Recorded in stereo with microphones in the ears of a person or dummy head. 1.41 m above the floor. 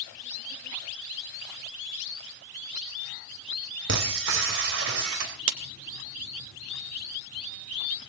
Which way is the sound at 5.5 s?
70° right (ahead or behind).